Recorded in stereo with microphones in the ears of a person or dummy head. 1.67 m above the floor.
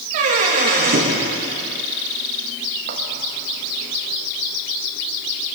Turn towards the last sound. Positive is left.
turn(degrees=-55)  # may be behind; listen again after turning